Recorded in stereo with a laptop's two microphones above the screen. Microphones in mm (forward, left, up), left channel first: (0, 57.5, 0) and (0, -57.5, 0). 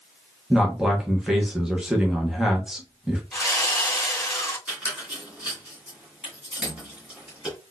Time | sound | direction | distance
0.5 | a man speaking | 5° right (ahead or behind) | 0.8 m
3.3 | sawing | centre (ahead or behind) | 1.9 m
4.7 | a squeak | 10° right (ahead or behind) | 1.8 m